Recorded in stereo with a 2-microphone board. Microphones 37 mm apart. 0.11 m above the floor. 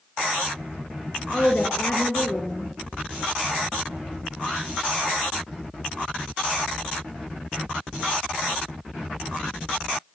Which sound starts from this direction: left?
A woman speaking, at 1.3 s.